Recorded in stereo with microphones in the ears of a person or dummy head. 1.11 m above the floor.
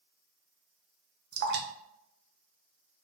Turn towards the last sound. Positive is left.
turn(degrees=-55)  # may be behind; listen again after turning